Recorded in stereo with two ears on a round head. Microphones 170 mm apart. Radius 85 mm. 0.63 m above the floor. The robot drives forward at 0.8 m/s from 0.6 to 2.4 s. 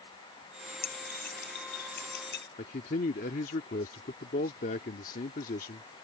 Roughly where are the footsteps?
I don't hear footsteps.